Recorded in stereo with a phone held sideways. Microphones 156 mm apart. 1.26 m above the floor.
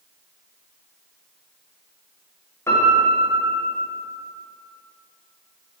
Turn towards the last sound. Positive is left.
turn(degrees=15)  # may be behind; listen again after turning